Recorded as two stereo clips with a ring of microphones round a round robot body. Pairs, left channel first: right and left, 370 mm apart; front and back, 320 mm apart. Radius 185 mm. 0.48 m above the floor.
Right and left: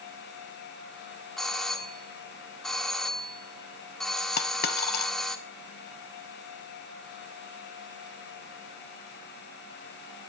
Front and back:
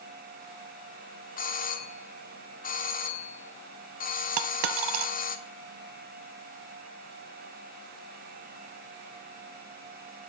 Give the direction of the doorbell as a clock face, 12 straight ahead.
12 o'clock.